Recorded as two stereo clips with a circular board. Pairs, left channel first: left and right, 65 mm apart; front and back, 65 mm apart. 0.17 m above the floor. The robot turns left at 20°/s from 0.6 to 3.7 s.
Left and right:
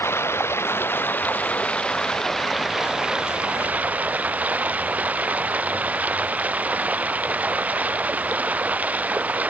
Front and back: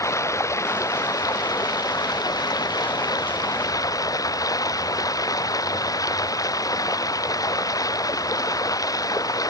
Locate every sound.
0.0 s running water: 40° left; by 9.5 s 25° right